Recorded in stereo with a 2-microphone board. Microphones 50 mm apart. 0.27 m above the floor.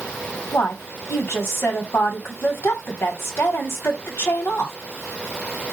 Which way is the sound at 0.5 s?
50° left (ahead or behind).